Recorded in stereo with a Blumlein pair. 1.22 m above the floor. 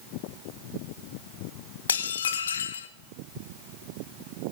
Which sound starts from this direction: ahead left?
Dishes clattering, at 1.9 s.